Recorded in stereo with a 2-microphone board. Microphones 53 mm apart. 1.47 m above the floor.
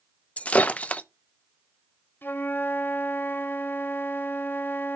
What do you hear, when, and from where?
0.4 s breaking glass: 25° left (ahead or behind), 0.6 m
2.2 s a flute: 40° left (ahead or behind), 0.9 m